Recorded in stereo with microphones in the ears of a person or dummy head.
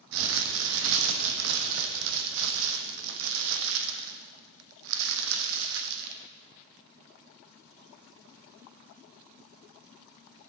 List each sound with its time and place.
0.1 s crumpling: 70° right (ahead or behind), 1.2 m